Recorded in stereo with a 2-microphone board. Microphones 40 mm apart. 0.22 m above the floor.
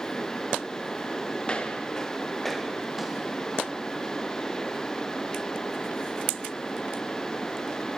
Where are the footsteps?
25° left (ahead or behind), 2.5 m; by 3.9 s 15° right (ahead or behind), 4 m.